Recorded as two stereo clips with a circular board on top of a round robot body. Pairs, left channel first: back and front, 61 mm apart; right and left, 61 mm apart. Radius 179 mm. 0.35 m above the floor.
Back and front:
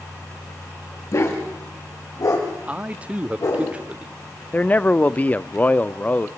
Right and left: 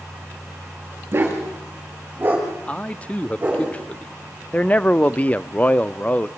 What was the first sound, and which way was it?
A dog barking, 145° left.